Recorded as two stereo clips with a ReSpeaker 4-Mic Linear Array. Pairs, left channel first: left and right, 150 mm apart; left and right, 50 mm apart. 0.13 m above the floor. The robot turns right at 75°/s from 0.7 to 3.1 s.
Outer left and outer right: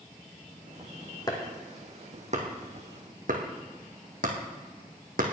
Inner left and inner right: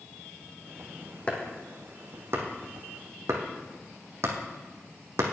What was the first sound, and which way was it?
Chopping, 25° left (ahead or behind).